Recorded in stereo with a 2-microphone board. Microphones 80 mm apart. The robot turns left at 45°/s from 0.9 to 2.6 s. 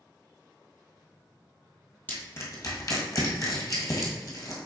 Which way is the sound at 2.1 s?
20° left (ahead or behind).